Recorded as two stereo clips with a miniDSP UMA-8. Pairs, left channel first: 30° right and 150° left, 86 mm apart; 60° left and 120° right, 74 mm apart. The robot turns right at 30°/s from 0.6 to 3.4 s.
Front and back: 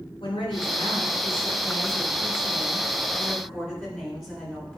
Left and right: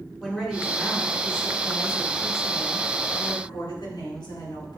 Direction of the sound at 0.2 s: 25° right.